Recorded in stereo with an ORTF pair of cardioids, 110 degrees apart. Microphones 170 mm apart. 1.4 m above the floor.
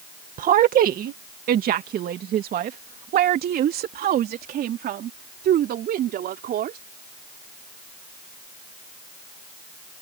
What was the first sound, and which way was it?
A woman speaking, 55° right.